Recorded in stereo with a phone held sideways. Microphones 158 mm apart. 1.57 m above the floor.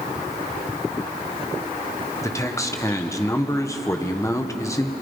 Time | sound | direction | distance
2.2 | a man speaking | 20° left (ahead or behind) | 1.4 m